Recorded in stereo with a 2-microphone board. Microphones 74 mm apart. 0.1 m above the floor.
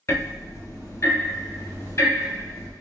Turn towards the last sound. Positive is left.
turn(degrees=40)  # may be behind; listen again after turning